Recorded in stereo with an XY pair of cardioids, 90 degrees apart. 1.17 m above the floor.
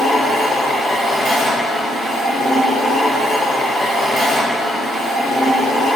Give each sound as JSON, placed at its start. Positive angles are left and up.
{"t": 0.0, "sound": "a machine running", "azimuth_deg": -65, "distance_m": 1.4}